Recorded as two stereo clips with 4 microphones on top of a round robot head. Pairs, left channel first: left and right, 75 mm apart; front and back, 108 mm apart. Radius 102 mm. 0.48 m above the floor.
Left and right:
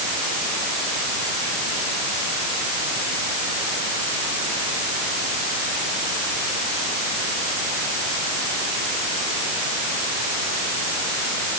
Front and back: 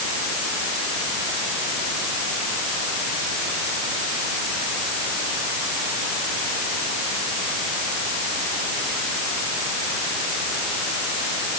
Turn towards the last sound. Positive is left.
No sound to turn to.